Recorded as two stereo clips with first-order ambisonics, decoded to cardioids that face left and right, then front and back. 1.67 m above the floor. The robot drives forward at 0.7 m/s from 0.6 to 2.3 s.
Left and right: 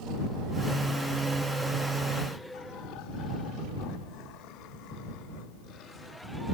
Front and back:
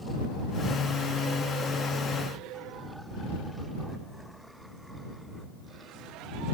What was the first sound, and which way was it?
Only background noise.